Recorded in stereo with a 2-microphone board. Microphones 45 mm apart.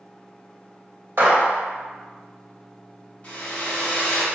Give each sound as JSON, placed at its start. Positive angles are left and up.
{"t": 1.2, "sound": "a gunshot", "side_deg": -55, "distance_m": 1.0}
{"t": 3.2, "sound": "a hair dryer", "side_deg": 35, "distance_m": 0.9}